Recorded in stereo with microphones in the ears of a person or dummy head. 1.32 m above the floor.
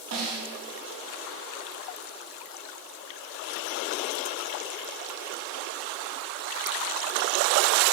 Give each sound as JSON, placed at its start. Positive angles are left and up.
{"t": 0.1, "sound": "a snare drum", "side_deg": -55, "distance_m": 3.5}